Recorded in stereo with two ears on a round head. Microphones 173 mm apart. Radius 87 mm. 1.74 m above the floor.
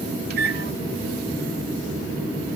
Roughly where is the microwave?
Right.